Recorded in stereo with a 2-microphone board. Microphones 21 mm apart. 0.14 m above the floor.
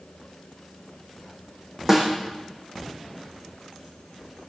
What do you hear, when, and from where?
1.9 s a snare drum: 25° right (ahead or behind), 3 m